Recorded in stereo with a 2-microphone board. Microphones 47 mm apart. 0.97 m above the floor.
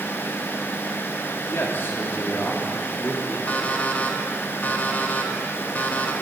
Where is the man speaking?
60° left (ahead or behind), 2 m; by 3.4 s 25° left (ahead or behind), 2 m.